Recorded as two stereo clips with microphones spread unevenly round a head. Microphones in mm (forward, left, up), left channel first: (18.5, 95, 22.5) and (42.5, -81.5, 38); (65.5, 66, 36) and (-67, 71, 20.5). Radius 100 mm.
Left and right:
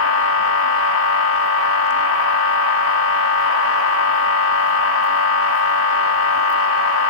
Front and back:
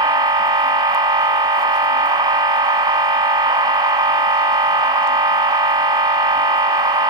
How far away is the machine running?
About 1.4 m.